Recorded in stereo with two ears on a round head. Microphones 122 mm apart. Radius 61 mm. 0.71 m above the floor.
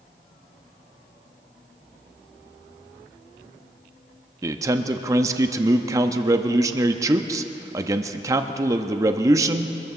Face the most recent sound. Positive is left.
turn(degrees=-25)  # may be behind; listen again after turning